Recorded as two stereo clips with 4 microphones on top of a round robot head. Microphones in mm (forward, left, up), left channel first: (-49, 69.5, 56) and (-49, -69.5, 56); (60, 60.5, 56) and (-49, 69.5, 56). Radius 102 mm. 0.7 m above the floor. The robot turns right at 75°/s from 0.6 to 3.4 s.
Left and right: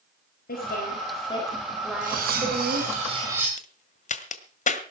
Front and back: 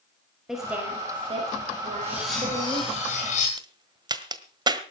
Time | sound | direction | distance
0.5 | a woman speaking | 90° left | 5 m
2.0 | cutlery clinking | 115° right | 5 m
3.6 | a crack | 125° left | 1.6 m